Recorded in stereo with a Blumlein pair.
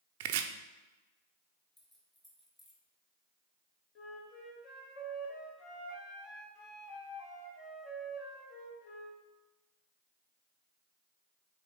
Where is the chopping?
50° right, 0.5 m.